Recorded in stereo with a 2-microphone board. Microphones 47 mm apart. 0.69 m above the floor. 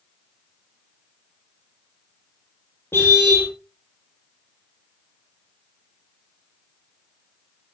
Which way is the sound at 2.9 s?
55° left (ahead or behind).